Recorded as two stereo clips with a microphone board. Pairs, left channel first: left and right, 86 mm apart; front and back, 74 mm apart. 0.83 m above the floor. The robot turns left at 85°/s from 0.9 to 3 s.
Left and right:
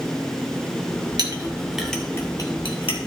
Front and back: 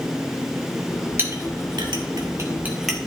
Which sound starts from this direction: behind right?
A clink, at 1.2 s.